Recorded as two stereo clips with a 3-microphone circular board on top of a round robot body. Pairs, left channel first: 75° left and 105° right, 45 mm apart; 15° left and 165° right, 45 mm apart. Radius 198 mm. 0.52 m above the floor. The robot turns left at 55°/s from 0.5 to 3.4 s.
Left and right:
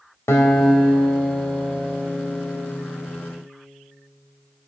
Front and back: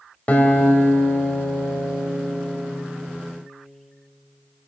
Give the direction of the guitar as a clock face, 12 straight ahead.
10 o'clock.